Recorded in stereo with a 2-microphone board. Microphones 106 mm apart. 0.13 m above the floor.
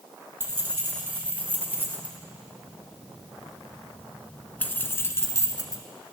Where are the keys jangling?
20° right (ahead or behind), 3 m; by 5.8 s 35° left (ahead or behind), 1.3 m.